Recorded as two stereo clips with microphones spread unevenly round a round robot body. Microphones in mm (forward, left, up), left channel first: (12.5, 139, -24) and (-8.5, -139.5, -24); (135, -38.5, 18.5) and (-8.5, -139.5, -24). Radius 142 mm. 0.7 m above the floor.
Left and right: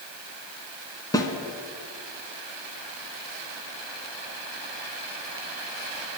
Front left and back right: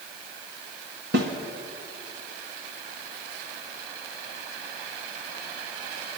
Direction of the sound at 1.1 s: 165° left.